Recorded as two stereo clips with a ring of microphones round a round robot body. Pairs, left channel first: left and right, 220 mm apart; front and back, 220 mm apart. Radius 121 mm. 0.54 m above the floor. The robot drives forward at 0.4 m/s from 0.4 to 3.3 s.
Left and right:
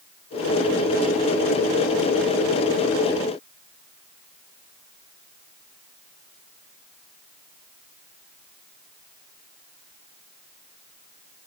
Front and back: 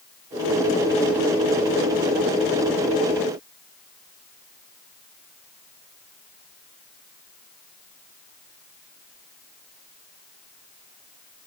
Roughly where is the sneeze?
No sneeze in this recording.